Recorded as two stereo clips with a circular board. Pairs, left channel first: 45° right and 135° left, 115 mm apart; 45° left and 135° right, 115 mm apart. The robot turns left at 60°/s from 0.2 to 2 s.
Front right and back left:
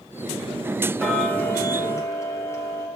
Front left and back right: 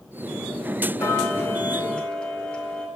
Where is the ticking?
35° left, 0.7 m; by 2.9 s 25° right, 0.7 m.